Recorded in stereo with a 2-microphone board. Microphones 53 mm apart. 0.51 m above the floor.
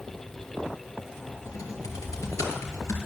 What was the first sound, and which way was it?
Typing on a keyboard, 85° left.